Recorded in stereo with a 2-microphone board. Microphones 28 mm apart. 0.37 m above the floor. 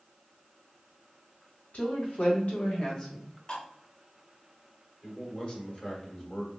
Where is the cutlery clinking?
35° left (ahead or behind), 0.7 m.